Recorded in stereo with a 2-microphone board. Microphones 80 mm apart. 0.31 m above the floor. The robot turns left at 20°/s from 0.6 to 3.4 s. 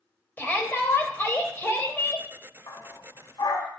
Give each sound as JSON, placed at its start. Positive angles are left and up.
{"t": 0.4, "sound": "a shout", "azimuth_deg": 120, "distance_m": 1.4}
{"t": 2.7, "sound": "a dog barking", "side_deg": 70, "distance_m": 1.1}